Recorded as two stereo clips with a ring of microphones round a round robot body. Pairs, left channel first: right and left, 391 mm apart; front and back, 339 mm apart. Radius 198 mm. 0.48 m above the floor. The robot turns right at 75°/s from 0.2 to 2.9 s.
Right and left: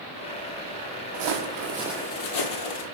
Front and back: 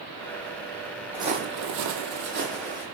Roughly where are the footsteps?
Left.